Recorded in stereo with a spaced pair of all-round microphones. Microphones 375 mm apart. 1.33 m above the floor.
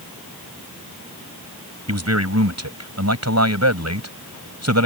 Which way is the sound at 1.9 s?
45° right (ahead or behind).